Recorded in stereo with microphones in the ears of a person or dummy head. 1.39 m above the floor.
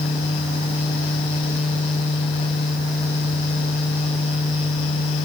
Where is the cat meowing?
I don't hear a cat meowing.